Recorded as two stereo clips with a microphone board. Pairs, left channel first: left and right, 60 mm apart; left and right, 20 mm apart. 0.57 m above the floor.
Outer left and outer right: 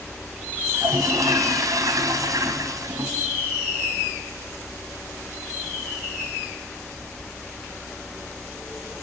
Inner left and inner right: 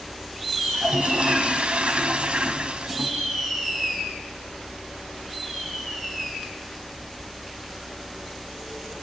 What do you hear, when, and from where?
0.7 s a toilet flushing: 70° right (ahead or behind), 3.5 m